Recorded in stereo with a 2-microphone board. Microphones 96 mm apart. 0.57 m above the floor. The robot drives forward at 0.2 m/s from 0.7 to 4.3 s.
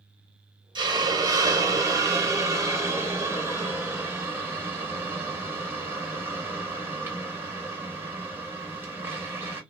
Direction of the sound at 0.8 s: 50° right (ahead or behind).